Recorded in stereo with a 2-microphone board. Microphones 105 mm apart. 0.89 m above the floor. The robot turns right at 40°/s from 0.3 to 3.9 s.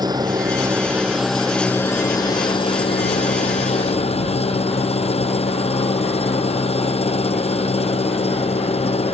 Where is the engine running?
40° right; by 9.1 s 105° left.